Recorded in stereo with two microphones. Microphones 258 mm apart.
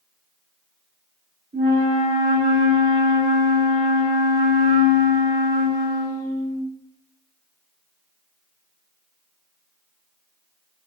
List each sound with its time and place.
1.5 s a flute: 50° right (ahead or behind), 1.7 m